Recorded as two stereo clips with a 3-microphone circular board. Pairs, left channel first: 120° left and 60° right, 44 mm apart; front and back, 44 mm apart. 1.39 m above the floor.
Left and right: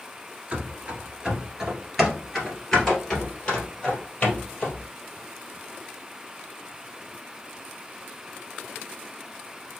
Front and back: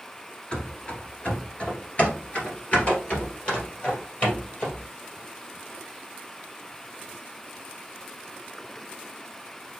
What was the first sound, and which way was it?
Running footsteps, 35° right.